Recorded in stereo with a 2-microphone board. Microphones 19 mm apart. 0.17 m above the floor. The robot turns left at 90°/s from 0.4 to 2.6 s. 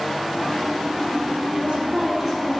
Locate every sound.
1.5 s a woman speaking: 95° right, 3.5 m; by 2.6 s 170° left, 3.5 m